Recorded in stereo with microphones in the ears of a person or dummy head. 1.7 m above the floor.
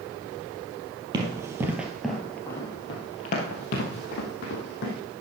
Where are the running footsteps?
25° right (ahead or behind), 2.5 m; by 4.9 s 60° left (ahead or behind), 3.5 m.